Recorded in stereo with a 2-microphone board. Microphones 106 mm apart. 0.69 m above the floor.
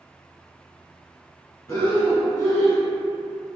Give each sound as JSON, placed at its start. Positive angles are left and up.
{"t": 1.7, "sound": "breathing", "side_deg": 35, "distance_m": 0.9}